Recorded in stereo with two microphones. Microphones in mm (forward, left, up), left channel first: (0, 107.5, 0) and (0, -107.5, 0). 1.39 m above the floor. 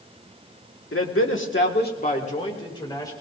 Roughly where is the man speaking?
Left.